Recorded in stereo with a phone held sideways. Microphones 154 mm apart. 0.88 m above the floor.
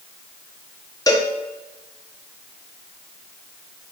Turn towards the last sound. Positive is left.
turn(degrees=25)  # may be behind; listen again after turning